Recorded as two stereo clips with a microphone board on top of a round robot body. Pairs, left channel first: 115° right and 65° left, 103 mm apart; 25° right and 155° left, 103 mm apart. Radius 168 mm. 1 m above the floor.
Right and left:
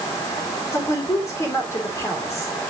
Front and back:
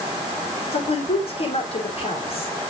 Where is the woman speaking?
50° right, 4 m.